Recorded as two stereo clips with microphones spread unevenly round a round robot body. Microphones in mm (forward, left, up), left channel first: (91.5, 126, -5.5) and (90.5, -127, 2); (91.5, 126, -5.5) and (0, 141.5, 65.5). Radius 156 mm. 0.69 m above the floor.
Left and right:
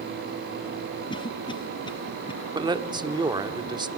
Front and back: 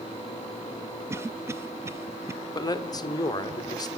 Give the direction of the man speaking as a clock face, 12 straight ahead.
1 o'clock.